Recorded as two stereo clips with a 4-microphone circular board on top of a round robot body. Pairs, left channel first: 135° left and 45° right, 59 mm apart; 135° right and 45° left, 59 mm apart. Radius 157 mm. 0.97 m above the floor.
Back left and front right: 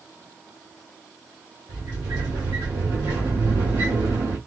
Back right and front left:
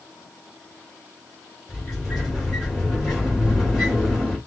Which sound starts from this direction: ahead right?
A sliding door, at 1.7 s.